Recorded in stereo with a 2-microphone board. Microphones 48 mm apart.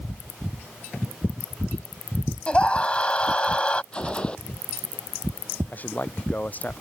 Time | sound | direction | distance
2.5 | a scream | 25° left (ahead or behind) | ?
3.9 | a gunshot | 25° left (ahead or behind) | ?
5.7 | a man speaking | 40° left (ahead or behind) | ?